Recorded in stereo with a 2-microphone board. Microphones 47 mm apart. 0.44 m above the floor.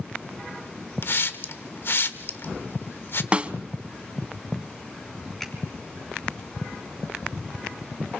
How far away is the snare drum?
About 0.6 m.